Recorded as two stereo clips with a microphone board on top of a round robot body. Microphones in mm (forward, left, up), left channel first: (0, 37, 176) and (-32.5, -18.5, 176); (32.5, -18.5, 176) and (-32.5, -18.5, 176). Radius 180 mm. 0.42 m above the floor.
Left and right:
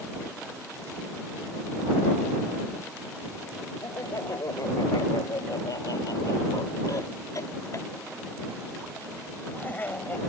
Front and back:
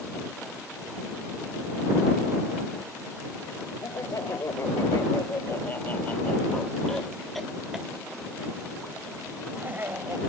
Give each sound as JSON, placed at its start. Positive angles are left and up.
{"t": 3.8, "sound": "laughter", "azimuth_deg": 30}